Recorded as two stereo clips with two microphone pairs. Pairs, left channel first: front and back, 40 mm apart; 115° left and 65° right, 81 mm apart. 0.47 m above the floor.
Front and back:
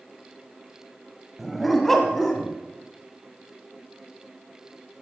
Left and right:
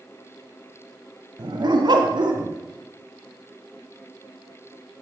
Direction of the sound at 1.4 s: 90° right.